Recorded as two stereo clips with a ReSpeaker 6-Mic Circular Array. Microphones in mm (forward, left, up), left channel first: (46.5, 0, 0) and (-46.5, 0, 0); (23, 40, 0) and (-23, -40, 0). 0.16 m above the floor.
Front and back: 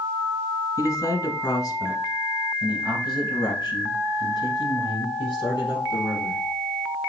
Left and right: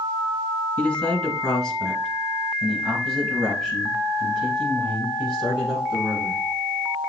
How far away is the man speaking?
About 1.5 m.